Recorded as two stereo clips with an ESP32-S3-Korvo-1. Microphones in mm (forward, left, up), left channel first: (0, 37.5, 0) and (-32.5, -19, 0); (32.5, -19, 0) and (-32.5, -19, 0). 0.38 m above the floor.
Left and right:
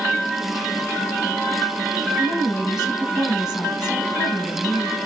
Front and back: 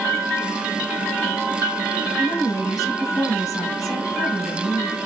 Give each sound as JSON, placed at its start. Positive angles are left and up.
{"t": 2.2, "sound": "a woman speaking", "azimuth_deg": 35, "distance_m": 3.5}